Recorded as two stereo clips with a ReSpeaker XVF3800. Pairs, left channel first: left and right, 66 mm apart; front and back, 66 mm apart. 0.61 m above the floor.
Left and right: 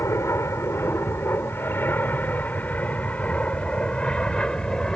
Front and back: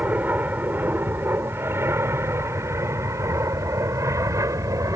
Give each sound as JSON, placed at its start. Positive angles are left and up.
{"t": 0.0, "sound": "an aircraft", "azimuth_deg": 120}